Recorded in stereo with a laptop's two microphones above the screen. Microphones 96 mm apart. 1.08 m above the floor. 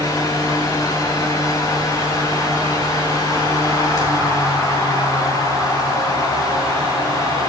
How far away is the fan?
About 2.5 m.